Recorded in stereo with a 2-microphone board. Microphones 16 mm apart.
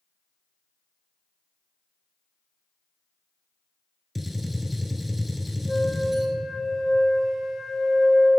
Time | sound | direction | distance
4.2 | a gunshot | 10° right (ahead or behind) | 0.8 m
5.7 | a flute | 15° left (ahead or behind) | 1.2 m